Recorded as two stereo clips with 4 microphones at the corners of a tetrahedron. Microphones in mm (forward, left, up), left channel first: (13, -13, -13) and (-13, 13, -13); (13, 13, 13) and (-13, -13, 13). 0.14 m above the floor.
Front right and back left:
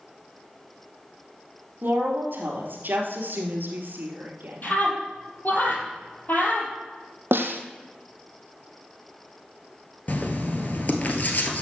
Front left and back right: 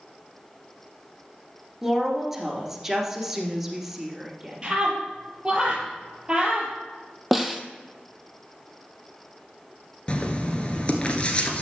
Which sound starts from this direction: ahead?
Writing, at 10.1 s.